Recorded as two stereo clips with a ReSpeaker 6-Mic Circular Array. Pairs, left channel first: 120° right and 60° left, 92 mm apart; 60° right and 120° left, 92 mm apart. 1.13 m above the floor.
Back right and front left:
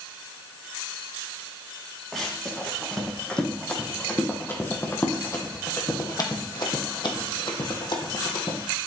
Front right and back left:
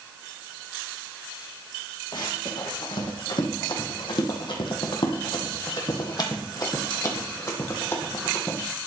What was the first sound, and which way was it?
Running footsteps, 35° right.